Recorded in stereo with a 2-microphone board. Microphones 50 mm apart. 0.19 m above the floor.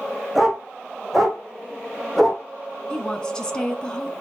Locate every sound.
0.3 s a dog barking: centre (ahead or behind), 4.5 m; by 2.4 s 5° left (ahead or behind), 3.5 m
2.9 s a woman speaking: 15° left (ahead or behind), 1.6 m